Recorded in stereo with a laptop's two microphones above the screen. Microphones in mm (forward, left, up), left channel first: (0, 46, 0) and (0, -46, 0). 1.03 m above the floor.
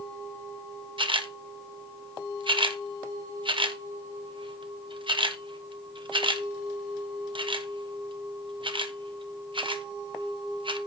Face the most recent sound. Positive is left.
turn(degrees=-65)  # may be behind; listen again after turning